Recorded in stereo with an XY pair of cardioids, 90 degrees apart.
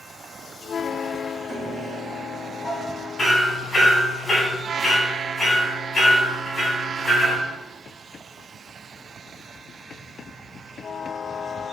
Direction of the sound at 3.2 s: 20° left.